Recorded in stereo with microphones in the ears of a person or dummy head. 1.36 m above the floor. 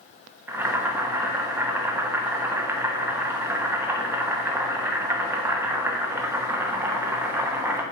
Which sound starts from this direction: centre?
Boiling, at 0.5 s.